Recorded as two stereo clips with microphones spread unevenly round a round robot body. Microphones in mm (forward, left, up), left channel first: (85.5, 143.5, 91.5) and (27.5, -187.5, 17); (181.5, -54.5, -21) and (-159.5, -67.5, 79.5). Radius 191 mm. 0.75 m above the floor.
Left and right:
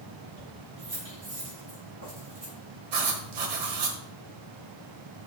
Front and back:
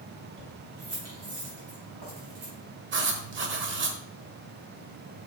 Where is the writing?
125° right, 1.1 m.